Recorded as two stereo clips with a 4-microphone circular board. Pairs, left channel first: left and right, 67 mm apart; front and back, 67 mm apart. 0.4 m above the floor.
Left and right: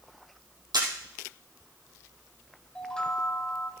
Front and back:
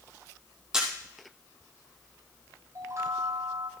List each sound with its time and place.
0.7 s a camera shutter: 100° right, 3.5 m
2.8 s a chime: 165° left, 1.4 m